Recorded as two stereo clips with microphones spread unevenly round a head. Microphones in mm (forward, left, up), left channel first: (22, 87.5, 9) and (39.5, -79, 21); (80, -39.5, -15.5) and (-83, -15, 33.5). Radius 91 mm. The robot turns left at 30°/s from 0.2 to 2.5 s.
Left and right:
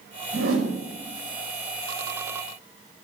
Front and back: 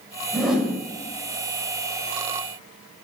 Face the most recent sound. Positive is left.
turn(degrees=-165)